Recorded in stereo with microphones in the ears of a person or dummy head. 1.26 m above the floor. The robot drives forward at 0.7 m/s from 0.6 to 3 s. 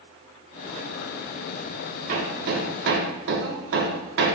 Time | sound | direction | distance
2.1 | hammering | 50° right (ahead or behind) | 1.6 m